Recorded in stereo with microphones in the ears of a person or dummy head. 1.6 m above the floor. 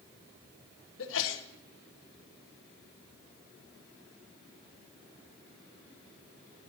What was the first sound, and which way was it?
A sneeze, 75° left (ahead or behind).